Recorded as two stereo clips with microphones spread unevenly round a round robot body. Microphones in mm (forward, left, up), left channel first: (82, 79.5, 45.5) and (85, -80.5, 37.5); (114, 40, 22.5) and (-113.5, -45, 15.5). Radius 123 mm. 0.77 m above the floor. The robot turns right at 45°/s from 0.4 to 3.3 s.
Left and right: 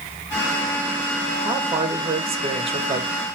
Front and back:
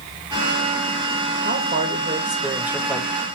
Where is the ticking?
I don't hear ticking.